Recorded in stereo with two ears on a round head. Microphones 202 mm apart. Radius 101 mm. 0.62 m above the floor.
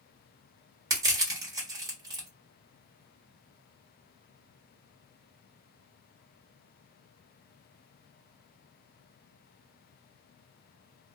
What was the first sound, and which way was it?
Crushing, 15° right (ahead or behind).